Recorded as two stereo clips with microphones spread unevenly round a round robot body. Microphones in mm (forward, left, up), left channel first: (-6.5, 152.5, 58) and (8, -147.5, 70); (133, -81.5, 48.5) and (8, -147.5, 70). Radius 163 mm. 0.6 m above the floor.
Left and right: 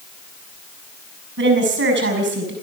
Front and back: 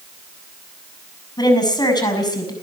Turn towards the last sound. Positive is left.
turn(degrees=-30)